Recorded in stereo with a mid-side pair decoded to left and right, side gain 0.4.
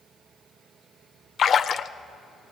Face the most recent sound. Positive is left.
turn(degrees=55)